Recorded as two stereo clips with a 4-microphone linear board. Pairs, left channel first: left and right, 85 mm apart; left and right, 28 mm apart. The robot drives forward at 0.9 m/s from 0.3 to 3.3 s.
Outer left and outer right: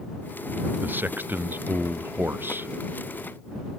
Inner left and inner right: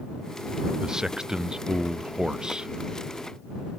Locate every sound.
0.8 s a man speaking: 20° right (ahead or behind); by 2.7 s 25° right (ahead or behind)